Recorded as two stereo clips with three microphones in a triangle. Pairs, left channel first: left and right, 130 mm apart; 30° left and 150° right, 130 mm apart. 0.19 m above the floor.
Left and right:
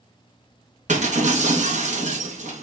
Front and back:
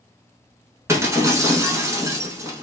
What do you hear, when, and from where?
0.9 s breaking glass: 85° right, 0.8 m